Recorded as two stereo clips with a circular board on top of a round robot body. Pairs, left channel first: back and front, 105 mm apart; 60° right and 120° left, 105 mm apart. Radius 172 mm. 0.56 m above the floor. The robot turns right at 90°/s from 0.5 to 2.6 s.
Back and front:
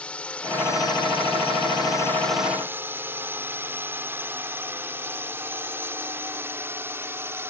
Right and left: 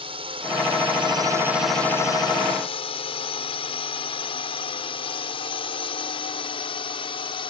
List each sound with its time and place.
0.0 s a drone: 100° left; by 7.5 s 65° right